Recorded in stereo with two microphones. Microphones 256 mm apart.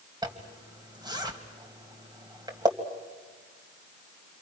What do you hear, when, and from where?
0.2 s a zipper: 15° right (ahead or behind), 2 m